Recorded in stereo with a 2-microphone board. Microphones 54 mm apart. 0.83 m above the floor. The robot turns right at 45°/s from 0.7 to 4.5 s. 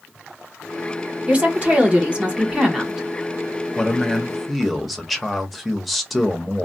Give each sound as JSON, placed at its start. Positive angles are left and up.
{"t": 1.3, "sound": "a woman speaking", "side_deg": -25, "distance_m": 0.9}
{"t": 3.8, "sound": "a man speaking", "side_deg": 15, "distance_m": 0.8}